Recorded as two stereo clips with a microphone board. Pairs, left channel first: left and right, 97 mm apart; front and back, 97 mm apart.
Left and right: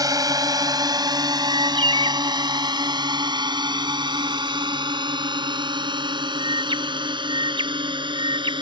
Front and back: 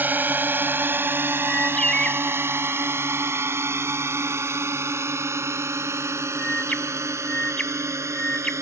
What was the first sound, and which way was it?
A drone, 115° right.